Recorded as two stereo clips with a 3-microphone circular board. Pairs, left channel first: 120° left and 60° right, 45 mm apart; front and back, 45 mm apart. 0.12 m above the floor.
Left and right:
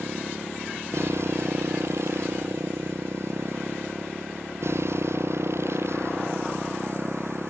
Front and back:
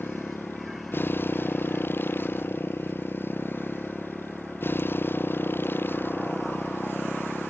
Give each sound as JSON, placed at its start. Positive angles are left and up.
{"t": 0.0, "sound": "a motorcycle", "azimuth_deg": -40}